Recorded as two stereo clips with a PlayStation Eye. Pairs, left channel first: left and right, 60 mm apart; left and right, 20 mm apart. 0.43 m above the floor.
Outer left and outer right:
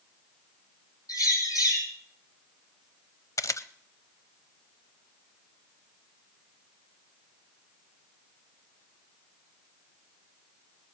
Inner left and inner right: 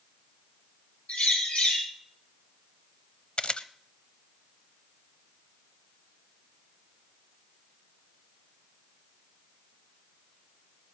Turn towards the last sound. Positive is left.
turn(degrees=60)  # may be behind; listen again after turning